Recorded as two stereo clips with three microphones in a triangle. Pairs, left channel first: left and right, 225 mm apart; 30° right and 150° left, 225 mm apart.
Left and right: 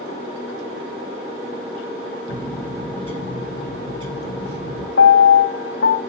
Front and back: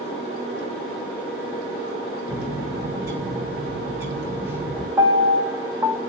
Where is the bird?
75° left, 1.9 m.